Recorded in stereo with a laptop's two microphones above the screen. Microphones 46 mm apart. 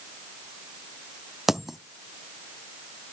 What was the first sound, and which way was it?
A dropped coin, 5° right (ahead or behind).